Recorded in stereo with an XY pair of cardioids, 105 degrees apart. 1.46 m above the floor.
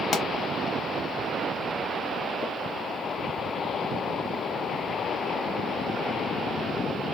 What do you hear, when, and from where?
0.1 s a pop: 60° left, 1.2 m